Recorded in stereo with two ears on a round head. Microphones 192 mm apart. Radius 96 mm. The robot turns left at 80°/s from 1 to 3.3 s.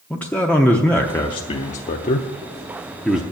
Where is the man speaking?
5° left (ahead or behind), 0.7 m; by 3.2 s 5° right (ahead or behind), 0.7 m.